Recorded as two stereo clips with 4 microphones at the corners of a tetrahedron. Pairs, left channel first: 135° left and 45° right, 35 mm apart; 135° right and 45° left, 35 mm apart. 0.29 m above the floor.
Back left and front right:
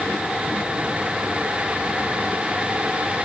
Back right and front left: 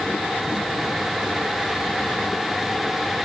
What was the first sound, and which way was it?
Only background noise.